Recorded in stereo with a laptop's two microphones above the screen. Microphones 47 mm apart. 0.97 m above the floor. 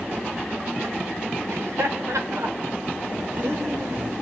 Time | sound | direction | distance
1.5 | laughter | 80° right | 3.5 m